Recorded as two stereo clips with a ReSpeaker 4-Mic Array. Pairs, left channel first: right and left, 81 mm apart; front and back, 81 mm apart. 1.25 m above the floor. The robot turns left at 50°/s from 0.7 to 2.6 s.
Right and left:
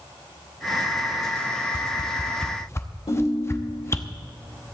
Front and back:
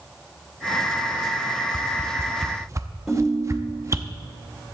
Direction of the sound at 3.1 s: 100° right.